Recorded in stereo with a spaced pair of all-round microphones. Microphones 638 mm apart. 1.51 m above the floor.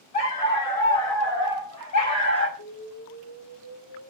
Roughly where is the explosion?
Left.